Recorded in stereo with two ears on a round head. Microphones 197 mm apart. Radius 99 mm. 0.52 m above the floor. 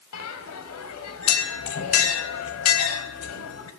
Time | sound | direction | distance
0.1 | a bell | 75° left (ahead or behind) | 1.5 m